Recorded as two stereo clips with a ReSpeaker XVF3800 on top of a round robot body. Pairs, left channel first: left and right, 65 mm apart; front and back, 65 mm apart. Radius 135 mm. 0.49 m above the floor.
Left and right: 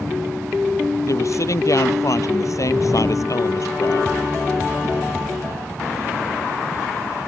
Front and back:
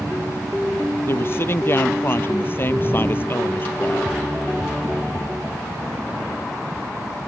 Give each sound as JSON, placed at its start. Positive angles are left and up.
{"t": 1.1, "sound": "a woman speaking", "azimuth_deg": 55}